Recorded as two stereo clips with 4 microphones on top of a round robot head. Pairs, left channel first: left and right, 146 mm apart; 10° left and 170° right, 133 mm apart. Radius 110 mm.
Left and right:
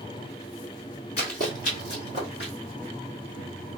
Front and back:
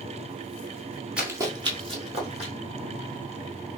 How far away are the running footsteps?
About 1.0 m.